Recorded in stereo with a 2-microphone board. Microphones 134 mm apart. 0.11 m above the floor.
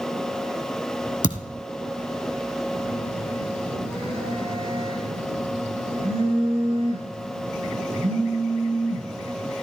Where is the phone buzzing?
45° right (ahead or behind), 5.5 m.